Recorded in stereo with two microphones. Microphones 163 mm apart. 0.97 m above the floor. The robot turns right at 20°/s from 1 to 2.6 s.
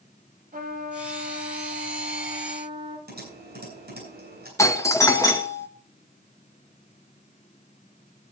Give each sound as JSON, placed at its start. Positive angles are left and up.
{"t": 0.5, "sound": "a trumpet", "azimuth_deg": -60, "distance_m": 2.5}
{"t": 3.1, "sound": "typing on a keyboard", "side_deg": -70, "distance_m": 7.5}
{"t": 4.6, "sound": "a doorbell", "side_deg": 20, "distance_m": 1.1}